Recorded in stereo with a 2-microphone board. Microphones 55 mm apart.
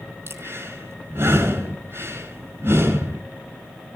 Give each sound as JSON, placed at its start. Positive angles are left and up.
{"t": 0.3, "sound": "breathing", "side_deg": -50, "distance_m": 5.0}